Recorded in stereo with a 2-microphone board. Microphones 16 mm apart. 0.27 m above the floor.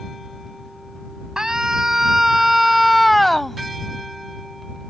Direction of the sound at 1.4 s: 50° right (ahead or behind).